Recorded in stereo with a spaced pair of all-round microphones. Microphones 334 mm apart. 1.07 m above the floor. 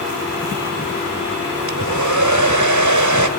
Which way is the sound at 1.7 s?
60° right (ahead or behind).